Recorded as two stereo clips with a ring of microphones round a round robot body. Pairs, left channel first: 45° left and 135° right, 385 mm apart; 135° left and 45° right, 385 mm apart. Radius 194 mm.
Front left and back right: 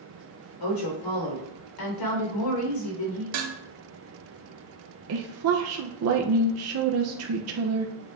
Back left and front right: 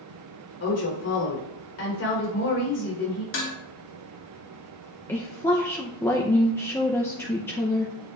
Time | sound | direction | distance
0.6 | a woman speaking | 80° left | 4 m
3.3 | dishes clattering | 165° right | 1.4 m
5.1 | a woman speaking | 145° right | 0.6 m